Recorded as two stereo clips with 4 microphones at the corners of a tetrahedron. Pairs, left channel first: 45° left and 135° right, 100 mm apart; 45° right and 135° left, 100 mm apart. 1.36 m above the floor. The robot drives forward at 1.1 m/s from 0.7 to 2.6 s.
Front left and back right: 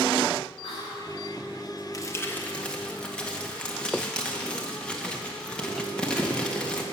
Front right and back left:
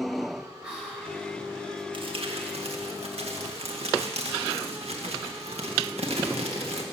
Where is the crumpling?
100° left, 1.4 m; by 6.8 s 125° left, 1.6 m.